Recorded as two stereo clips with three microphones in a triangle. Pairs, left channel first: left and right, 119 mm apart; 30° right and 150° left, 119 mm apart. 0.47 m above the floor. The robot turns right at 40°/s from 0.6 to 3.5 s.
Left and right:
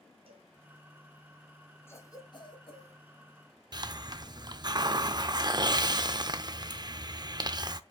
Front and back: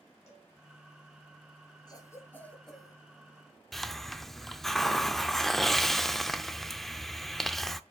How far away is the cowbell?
About 1.8 m.